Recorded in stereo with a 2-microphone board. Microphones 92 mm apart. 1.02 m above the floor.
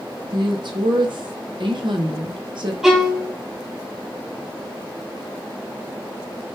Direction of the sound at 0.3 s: 60° right (ahead or behind).